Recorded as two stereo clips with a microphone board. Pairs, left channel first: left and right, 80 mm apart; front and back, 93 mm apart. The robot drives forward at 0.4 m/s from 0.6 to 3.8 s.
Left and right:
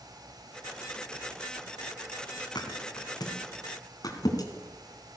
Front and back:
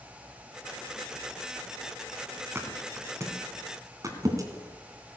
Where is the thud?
115° left, 2.0 m; by 5.2 s 130° left, 2 m.